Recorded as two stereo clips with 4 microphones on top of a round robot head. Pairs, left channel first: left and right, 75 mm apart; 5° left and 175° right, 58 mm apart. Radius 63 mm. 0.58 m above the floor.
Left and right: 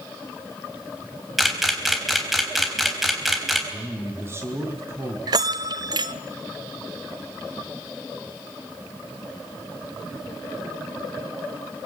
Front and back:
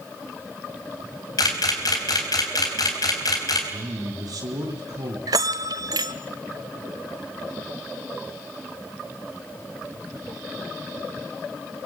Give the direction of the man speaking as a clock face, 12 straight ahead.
5 o'clock.